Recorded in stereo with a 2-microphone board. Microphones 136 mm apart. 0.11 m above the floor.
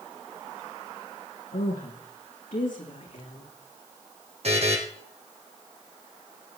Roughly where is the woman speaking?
Left.